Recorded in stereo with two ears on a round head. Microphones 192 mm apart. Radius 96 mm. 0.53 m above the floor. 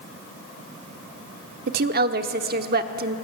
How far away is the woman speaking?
About 1.1 m.